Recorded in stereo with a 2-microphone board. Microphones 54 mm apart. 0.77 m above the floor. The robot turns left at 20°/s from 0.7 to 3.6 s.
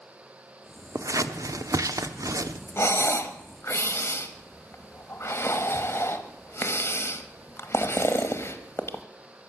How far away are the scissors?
About 0.9 m.